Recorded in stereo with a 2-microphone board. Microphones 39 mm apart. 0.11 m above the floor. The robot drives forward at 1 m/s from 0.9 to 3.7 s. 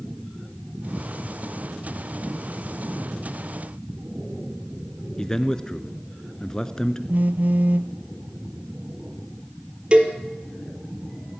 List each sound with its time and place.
5.2 s a man speaking: 20° left (ahead or behind), 1.2 m
7.1 s a phone buzzing: 50° right (ahead or behind), 0.6 m
9.9 s a cowbell: 35° right (ahead or behind), 2.5 m